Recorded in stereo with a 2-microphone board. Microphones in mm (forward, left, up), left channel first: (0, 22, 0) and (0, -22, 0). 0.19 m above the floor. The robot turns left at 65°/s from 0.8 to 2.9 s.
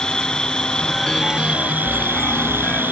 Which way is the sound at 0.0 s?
20° left.